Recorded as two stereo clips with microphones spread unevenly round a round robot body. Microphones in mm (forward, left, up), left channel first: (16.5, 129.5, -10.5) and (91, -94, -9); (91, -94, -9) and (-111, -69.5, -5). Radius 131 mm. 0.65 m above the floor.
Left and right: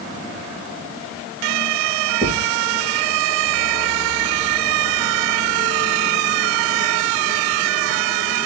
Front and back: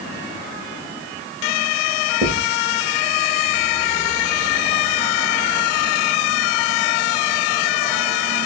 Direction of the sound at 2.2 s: 150° right.